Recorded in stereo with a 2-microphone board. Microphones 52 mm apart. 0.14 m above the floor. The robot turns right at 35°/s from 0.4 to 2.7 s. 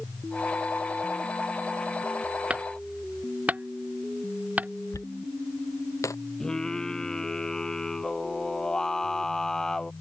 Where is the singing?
15° left (ahead or behind).